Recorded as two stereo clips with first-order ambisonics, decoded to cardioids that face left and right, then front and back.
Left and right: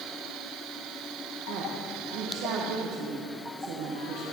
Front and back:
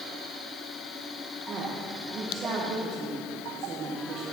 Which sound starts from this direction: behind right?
A woman speaking, at 1.5 s.